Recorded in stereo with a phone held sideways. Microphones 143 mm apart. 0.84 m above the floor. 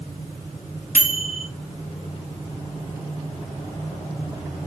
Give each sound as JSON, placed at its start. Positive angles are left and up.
{"t": 0.9, "sound": "a microwave", "side_deg": 75, "distance_m": 1.1}